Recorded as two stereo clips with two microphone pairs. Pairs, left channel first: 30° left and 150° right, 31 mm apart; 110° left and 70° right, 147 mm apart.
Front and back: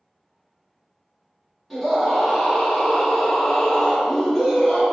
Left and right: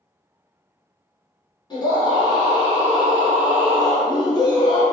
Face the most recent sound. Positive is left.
turn(degrees=125)